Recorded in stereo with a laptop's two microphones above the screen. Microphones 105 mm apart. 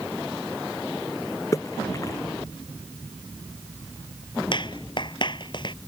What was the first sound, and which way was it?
A splash, 30° left (ahead or behind).